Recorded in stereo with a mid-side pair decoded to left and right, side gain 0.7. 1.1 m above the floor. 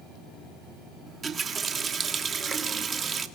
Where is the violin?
I don't hear a violin.